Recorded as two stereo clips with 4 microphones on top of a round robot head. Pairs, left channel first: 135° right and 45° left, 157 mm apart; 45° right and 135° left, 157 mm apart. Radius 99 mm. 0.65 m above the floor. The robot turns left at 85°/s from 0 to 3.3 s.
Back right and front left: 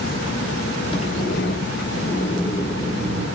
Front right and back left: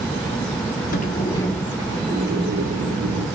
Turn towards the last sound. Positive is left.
turn(degrees=80)